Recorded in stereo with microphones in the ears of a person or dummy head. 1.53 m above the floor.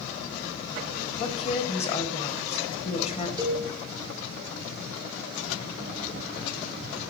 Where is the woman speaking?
30° left (ahead or behind), 1.2 m.